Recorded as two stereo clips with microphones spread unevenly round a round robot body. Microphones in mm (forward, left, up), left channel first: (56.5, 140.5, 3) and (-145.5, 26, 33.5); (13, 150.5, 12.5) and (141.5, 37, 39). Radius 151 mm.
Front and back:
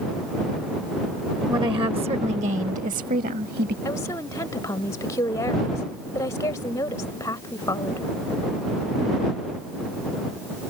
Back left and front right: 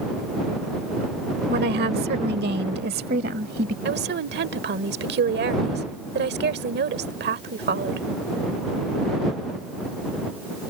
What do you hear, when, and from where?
1.5 s a woman speaking: 75° right; by 3.8 s 90° right
3.9 s a woman speaking: 45° right